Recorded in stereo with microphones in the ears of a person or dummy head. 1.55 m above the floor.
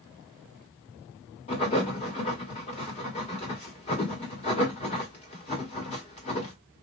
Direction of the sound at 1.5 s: 35° left (ahead or behind).